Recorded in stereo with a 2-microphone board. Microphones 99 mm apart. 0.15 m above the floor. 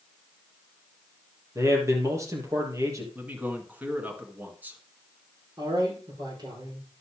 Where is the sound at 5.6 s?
45° right (ahead or behind), 6.5 m.